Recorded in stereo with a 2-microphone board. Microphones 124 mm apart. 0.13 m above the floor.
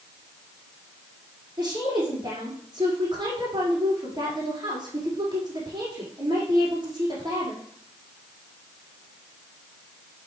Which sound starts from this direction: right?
A woman speaking, at 1.6 s.